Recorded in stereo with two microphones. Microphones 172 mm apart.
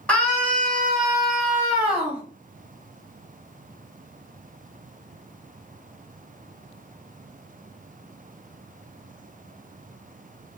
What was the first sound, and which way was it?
A scream, 5° left (ahead or behind).